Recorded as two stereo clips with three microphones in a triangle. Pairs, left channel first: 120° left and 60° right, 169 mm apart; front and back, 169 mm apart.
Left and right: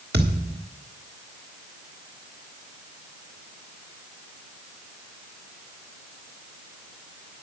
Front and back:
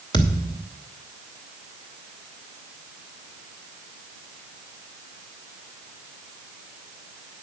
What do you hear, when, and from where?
0.1 s a thud: 65° right, 2.5 m